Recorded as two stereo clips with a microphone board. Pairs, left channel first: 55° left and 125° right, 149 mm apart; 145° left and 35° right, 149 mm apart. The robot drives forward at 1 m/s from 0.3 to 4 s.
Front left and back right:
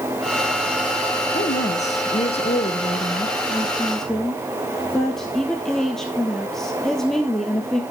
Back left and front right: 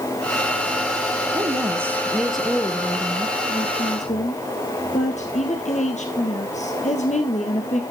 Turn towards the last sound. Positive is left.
turn(degrees=140)